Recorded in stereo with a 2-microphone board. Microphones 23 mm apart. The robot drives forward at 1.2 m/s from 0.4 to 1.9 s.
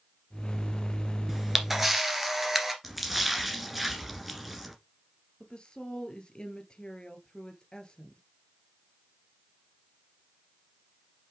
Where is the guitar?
No guitar in this recording.